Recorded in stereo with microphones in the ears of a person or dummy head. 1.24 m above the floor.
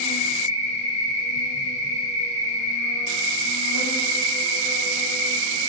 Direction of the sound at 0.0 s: 55° left (ahead or behind).